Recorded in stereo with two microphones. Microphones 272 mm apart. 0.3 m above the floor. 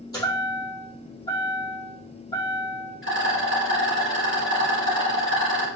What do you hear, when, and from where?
0.1 s a chime: 15° left (ahead or behind), 3.5 m
3.0 s a rattle: 50° left (ahead or behind), 3 m